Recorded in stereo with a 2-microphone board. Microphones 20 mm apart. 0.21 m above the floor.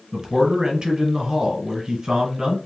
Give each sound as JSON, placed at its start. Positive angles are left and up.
{"t": 0.1, "sound": "a man speaking", "side_deg": -30, "distance_m": 1.6}